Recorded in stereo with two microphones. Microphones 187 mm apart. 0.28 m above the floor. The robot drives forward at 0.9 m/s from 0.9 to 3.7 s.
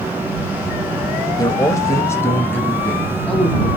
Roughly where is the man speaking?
Left.